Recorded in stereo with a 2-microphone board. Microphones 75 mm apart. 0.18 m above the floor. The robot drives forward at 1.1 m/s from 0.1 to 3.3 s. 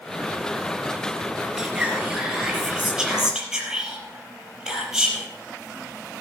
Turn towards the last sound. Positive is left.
turn(degrees=-5)  # may be behind; listen again after turning